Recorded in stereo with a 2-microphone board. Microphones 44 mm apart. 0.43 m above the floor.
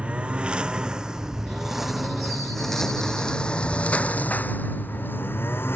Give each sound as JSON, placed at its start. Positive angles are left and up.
{"t": 0.0, "sound": "a lawn mower", "side_deg": -30}